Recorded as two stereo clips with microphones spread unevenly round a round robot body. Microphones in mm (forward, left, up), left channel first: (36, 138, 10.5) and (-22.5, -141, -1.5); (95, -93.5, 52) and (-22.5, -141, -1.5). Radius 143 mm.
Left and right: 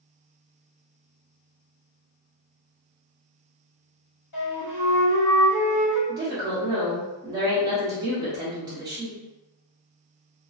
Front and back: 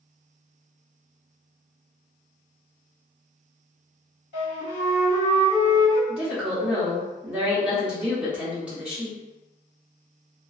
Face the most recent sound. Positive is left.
turn(degrees=-160)